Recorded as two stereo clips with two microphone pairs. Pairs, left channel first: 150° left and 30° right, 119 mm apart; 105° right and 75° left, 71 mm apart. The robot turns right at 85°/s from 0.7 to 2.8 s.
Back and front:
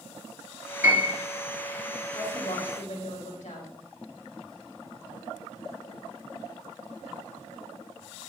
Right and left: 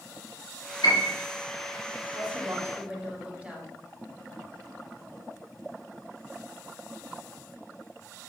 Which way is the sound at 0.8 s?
105° right.